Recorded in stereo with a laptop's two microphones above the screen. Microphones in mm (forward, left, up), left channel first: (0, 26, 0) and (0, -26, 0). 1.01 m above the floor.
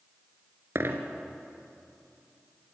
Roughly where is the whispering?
No whispering in this recording.